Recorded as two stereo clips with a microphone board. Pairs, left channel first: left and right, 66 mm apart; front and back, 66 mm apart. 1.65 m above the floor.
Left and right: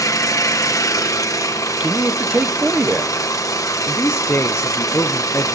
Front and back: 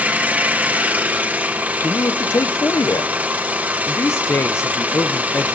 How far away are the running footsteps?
No running footsteps in this recording.